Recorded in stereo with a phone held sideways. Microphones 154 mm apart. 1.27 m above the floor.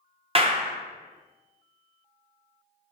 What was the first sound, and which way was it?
A clap, 35° right (ahead or behind).